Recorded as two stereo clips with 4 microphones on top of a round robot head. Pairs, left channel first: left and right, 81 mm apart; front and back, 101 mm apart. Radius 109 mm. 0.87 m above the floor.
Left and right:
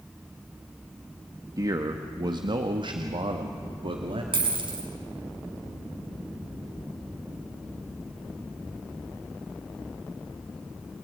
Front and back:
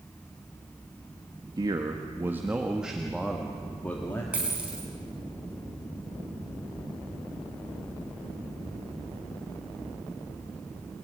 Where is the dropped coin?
105° right, 5 m.